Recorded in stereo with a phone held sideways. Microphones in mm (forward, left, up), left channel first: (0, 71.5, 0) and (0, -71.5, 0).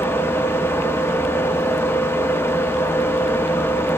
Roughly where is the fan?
Centre.